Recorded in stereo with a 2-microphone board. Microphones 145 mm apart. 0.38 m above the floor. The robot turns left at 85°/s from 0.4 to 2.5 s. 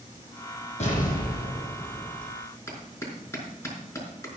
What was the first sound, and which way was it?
An explosion, 130° left.